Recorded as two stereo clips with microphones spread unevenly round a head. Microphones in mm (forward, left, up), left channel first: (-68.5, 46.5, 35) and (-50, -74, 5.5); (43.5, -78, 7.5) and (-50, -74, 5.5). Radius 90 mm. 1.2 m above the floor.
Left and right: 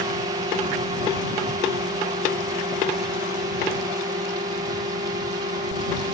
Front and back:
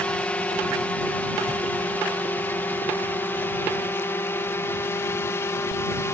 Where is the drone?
70° right; by 6.2 s 55° right.